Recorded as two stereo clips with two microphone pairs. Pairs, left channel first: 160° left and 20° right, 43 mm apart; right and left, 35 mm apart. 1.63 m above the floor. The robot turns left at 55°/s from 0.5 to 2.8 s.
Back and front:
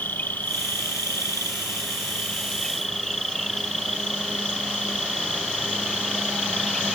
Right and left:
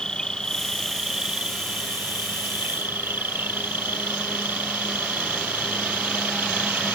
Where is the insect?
155° right; by 7.0 s 75° left.